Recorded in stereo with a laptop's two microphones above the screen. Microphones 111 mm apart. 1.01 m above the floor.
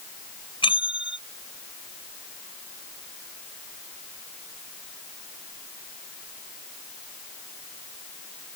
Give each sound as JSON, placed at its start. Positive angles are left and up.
{"t": 0.6, "sound": "a bell", "side_deg": 55}